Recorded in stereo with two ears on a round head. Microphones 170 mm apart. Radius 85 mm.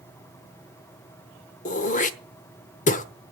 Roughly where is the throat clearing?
Left.